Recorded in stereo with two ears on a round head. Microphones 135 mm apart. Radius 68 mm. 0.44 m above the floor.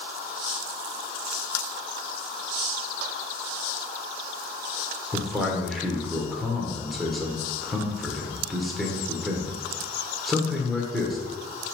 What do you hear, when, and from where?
5.1 s a man speaking: centre (ahead or behind), 1.5 m